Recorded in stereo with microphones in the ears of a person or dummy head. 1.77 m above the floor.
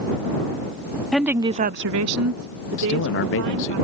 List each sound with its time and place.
1.1 s a woman speaking: centre (ahead or behind); by 3.8 s 60° right (ahead or behind)
2.8 s a man speaking: 55° left (ahead or behind)